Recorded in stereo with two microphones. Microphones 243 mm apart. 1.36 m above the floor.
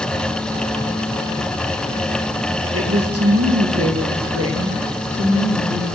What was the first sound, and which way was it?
A woman speaking, 60° right (ahead or behind).